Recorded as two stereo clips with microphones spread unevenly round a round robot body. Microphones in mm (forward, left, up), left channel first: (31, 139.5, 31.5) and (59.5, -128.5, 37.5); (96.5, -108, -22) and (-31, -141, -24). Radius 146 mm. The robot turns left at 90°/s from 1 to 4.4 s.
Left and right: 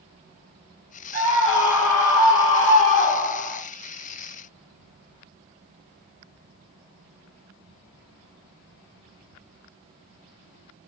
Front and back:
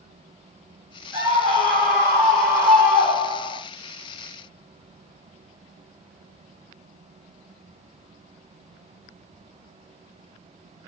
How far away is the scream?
About 1.7 m.